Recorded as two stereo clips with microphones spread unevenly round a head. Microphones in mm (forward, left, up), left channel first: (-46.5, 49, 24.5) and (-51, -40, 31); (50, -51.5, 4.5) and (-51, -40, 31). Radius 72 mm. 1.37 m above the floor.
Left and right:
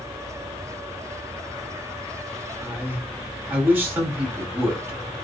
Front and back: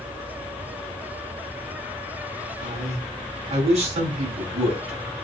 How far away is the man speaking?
About 9 m.